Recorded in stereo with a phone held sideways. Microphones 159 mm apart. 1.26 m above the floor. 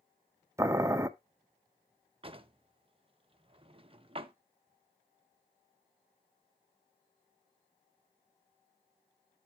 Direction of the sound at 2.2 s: 35° right (ahead or behind).